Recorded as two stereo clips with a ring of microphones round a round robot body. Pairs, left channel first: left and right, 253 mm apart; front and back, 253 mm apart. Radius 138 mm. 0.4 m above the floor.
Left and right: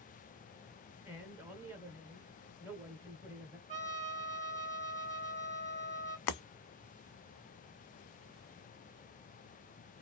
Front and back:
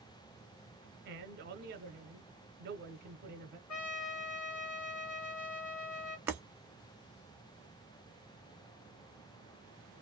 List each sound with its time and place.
1.1 s a man speaking: 170° right, 1.0 m
3.7 s a trumpet: 25° right, 1.6 m
6.3 s breaking glass: 100° left, 0.5 m